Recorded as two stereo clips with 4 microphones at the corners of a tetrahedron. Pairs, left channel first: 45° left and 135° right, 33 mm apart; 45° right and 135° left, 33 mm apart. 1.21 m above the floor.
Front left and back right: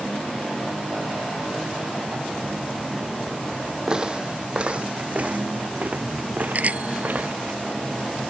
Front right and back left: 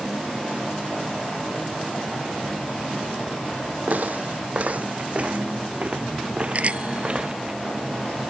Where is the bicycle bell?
175° right.